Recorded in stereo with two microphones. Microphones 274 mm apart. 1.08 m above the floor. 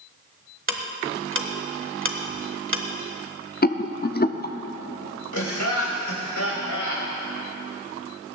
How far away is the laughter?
About 4.5 m.